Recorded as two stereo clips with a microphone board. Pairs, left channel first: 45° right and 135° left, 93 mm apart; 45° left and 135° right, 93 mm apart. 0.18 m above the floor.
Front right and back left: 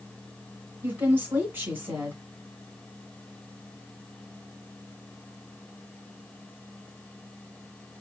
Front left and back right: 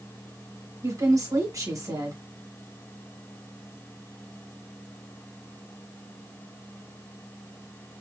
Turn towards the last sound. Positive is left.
turn(degrees=-165)